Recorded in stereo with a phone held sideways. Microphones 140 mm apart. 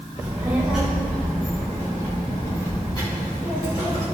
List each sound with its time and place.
0.2 s a child speaking: 25° right (ahead or behind), 1.7 m; by 4.1 s 45° left (ahead or behind), 4.5 m